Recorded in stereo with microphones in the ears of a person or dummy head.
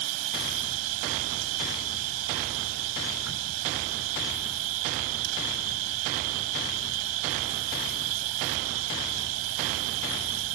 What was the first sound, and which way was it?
An insect, 85° right.